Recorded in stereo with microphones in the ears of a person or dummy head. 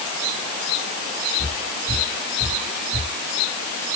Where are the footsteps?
25° right (ahead or behind), 1.6 m.